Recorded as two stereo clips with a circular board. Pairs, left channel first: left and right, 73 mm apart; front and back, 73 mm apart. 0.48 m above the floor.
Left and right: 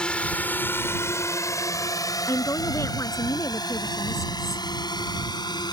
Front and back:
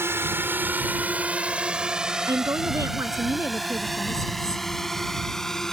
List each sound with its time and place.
0.0 s a drone: 160° left; by 5.7 s 85° left
2.3 s a woman speaking: 135° left